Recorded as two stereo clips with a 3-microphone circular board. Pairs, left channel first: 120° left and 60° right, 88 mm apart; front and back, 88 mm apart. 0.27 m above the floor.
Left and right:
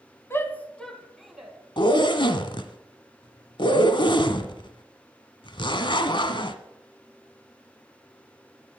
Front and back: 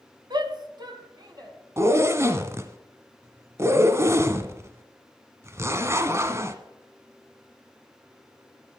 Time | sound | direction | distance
0.3 | a shout | 175° left | 1.7 m
1.8 | a zipper | 125° left | 1.1 m